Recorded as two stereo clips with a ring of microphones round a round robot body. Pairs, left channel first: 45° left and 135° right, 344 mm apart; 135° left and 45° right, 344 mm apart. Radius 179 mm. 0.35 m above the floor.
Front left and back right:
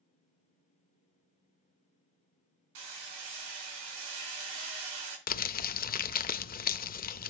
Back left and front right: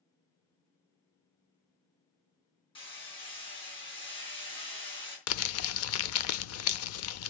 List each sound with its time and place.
2.8 s hammering: 150° right, 4 m
5.3 s crumpling: 100° left, 0.5 m